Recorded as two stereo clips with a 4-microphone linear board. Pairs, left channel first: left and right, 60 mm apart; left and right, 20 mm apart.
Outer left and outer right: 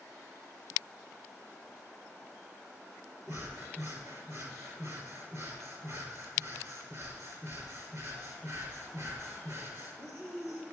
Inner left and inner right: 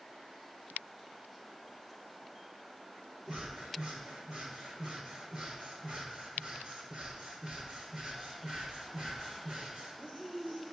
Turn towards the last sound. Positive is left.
turn(degrees=-50)  # may be behind; listen again after turning